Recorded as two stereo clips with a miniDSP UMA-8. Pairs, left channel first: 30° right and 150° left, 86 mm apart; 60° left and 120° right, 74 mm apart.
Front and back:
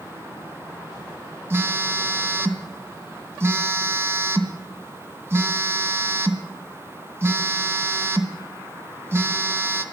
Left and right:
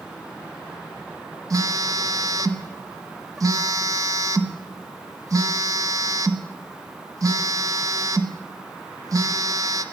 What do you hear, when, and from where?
1.5 s a phone buzzing: 155° right, 0.9 m